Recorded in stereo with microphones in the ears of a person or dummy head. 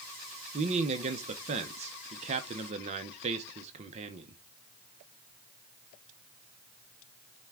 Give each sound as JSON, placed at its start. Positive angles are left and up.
{"t": 0.5, "sound": "a man speaking", "side_deg": -40, "distance_m": 0.6}